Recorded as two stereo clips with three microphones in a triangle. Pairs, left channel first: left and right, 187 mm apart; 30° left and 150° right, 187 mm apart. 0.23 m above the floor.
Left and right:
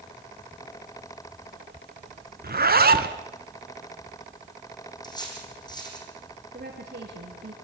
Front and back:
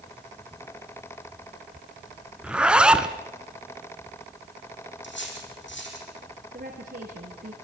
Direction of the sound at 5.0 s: 25° left.